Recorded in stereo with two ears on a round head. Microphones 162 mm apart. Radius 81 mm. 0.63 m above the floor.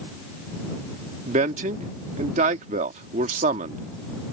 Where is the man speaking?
40° right (ahead or behind).